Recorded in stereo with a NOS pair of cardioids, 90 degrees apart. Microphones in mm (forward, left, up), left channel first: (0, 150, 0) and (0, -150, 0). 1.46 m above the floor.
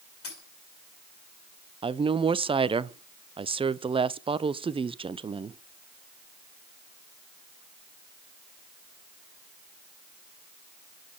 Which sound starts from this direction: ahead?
A woman speaking, at 1.8 s.